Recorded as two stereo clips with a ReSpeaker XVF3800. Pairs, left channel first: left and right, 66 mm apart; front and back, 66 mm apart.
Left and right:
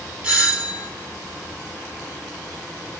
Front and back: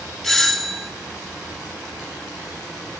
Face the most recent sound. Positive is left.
turn(degrees=-70)